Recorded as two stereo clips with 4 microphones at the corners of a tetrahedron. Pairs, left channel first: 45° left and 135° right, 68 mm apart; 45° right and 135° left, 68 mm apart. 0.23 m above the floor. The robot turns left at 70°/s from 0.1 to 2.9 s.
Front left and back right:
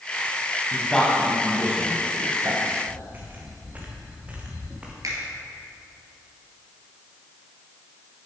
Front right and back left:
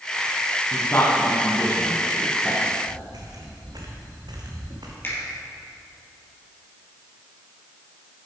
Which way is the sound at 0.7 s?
10° right.